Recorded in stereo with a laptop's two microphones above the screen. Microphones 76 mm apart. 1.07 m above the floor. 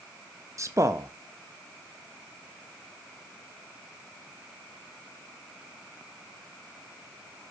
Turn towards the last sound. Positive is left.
turn(degrees=-40)  # may be behind; listen again after turning